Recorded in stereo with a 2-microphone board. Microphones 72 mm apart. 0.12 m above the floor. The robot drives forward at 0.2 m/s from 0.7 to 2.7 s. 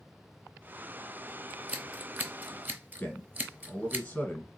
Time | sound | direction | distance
1.5 | scissors | 20° right (ahead or behind) | 0.9 m
3.0 | a man speaking | 20° left (ahead or behind) | 1.1 m